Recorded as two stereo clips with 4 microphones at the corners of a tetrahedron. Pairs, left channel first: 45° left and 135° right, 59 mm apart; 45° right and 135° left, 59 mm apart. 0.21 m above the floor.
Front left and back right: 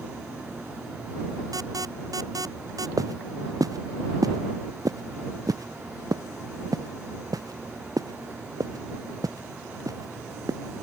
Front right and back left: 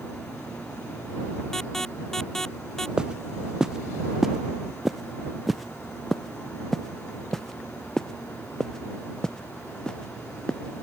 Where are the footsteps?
150° right; by 10.8 s 120° right.